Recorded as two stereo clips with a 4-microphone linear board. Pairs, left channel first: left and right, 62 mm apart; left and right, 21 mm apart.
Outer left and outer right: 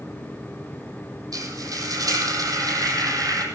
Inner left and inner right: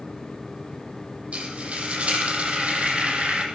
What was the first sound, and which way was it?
Frying, 65° right (ahead or behind).